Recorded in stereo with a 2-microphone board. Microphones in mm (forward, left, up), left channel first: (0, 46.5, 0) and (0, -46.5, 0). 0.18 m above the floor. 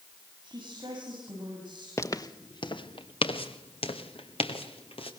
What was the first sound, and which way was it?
A woman speaking, 50° right (ahead or behind).